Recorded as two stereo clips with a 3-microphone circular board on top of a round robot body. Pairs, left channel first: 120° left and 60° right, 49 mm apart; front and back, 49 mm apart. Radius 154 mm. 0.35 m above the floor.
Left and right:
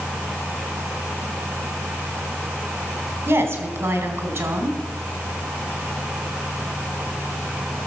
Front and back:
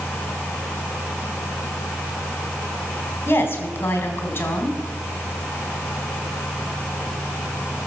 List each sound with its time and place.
3.3 s a woman speaking: 45° right, 2.5 m